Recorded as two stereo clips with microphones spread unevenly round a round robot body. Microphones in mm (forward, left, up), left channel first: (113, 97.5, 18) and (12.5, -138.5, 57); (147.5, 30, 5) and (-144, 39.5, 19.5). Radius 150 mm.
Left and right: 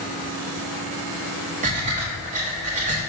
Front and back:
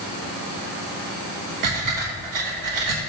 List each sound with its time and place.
1.6 s breathing: straight behind, 1.2 m